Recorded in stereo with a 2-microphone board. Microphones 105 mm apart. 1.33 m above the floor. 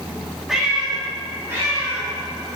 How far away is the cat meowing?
About 1.4 m.